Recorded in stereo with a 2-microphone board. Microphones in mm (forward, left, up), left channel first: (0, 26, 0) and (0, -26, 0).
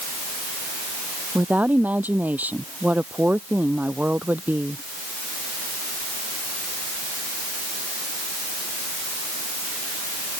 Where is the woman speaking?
30° right (ahead or behind).